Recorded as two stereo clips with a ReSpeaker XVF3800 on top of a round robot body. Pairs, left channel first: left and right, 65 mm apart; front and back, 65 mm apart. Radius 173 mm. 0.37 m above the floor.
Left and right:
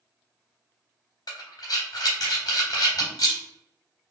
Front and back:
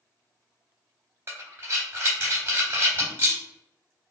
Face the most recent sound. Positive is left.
turn(degrees=120)